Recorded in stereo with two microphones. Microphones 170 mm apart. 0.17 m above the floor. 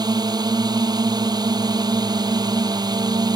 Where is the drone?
25° right (ahead or behind).